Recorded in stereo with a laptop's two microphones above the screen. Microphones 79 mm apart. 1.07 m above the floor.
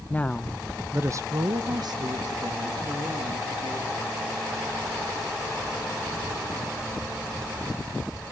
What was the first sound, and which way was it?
A woman speaking, 20° left (ahead or behind).